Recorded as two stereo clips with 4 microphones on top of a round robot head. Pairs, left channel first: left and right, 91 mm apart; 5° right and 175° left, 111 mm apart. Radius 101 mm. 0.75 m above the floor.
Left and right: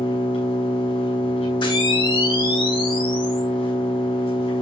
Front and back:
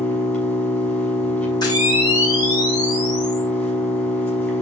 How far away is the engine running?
About 7 m.